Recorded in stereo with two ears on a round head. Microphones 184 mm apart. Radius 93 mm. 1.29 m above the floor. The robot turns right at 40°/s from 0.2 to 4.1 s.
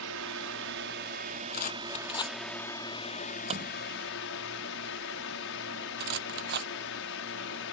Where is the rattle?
50° left (ahead or behind); by 6.7 s 55° right (ahead or behind).